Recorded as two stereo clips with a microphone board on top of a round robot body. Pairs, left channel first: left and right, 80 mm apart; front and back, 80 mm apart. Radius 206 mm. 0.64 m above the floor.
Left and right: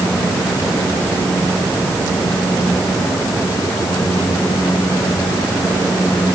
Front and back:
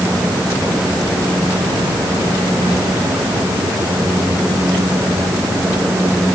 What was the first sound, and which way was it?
Only background noise.